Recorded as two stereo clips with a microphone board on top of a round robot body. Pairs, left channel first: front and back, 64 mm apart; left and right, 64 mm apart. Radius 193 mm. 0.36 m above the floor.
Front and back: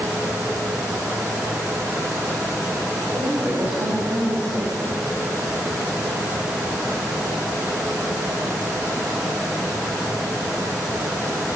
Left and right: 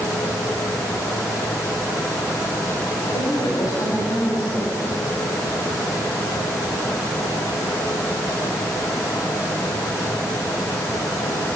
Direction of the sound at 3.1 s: 115° left.